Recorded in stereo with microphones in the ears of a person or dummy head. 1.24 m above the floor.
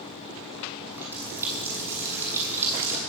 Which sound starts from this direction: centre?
A running tap, at 0.9 s.